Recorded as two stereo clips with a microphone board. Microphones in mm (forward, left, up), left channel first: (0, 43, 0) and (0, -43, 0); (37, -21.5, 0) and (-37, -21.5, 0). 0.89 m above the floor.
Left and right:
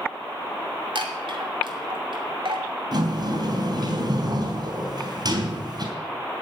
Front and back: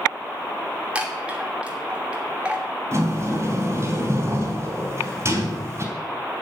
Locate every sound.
0.9 s a chime: 105° right, 2.5 m
2.9 s a sliding door: 130° right, 3.5 m